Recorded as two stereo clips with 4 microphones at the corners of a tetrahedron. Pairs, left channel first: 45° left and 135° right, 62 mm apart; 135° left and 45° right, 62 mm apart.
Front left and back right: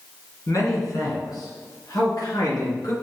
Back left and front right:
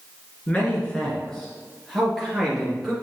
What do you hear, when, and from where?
0.5 s a man speaking: 65° left, 2 m; by 2.9 s 40° left, 3.5 m